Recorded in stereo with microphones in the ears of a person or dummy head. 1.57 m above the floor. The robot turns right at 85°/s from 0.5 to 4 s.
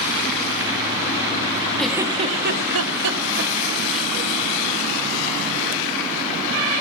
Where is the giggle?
Centre (ahead or behind), 1.6 m; by 4.1 s 10° left (ahead or behind), 1.6 m.